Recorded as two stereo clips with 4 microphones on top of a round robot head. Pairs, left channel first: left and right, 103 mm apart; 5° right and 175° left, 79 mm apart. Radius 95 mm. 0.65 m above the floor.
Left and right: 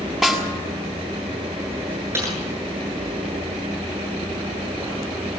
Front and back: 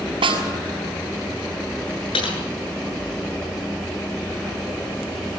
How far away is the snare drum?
About 7 m.